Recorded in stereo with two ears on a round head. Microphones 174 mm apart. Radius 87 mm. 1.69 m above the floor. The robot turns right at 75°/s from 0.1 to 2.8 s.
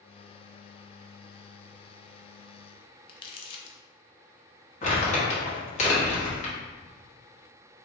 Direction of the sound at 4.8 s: 35° left (ahead or behind).